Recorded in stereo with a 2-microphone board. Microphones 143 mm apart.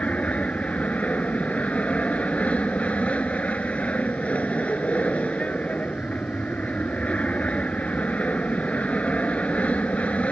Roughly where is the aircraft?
Centre.